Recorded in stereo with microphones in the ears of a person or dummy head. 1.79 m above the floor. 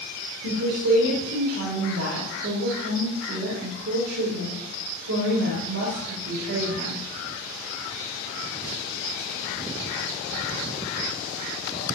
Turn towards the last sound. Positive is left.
turn(degrees=-85)